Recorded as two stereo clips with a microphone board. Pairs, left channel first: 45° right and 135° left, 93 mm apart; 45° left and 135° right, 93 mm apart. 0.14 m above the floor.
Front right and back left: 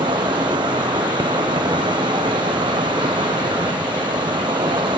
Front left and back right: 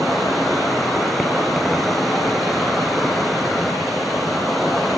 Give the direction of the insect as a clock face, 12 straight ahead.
8 o'clock.